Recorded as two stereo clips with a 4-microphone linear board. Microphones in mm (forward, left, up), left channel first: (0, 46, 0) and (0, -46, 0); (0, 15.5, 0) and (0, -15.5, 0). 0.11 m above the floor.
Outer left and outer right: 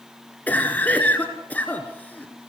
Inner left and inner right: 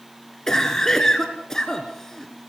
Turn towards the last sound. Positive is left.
turn(degrees=15)  # may be behind; listen again after turning